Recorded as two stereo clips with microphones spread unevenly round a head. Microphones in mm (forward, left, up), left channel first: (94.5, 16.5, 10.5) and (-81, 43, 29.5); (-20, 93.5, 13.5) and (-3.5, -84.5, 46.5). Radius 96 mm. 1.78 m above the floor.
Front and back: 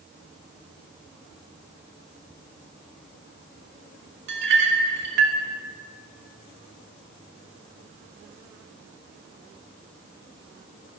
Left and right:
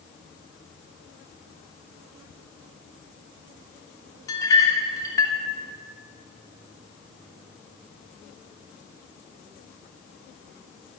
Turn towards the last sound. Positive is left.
turn(degrees=170)